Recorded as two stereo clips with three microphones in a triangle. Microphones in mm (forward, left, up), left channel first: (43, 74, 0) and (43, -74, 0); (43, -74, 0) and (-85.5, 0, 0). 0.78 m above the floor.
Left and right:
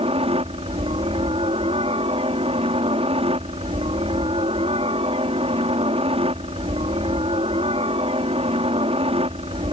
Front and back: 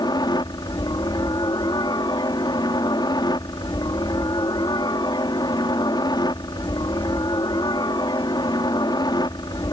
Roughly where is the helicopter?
Right.